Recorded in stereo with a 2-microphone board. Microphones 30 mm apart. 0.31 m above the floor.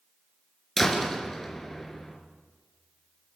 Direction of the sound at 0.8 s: 10° left (ahead or behind).